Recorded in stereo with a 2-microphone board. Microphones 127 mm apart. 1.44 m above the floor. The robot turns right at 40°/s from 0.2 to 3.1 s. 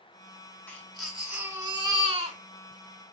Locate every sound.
0.7 s a baby crying: 170° left, 2.5 m; by 2.4 s 125° right, 2.5 m